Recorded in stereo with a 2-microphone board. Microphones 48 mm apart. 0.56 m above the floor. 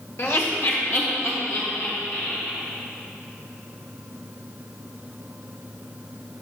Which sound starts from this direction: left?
Laughter, at 0.2 s.